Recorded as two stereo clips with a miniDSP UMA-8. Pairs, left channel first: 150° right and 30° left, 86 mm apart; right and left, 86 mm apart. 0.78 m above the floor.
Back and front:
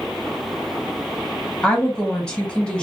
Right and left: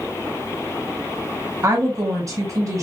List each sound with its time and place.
1.6 s a woman speaking: 130° left, 1.5 m